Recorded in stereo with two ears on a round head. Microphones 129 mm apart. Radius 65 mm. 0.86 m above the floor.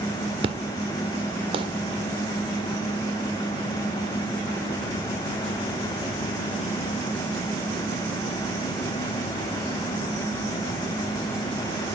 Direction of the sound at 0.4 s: 40° right (ahead or behind).